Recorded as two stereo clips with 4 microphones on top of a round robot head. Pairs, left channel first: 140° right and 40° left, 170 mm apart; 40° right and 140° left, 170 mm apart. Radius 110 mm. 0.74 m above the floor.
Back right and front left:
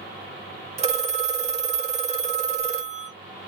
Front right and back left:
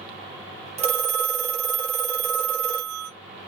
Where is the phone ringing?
90° left, 1.1 m.